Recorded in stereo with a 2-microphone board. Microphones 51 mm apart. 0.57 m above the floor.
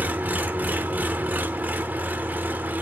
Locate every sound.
0.0 s an engine running: 35° right (ahead or behind), 0.8 m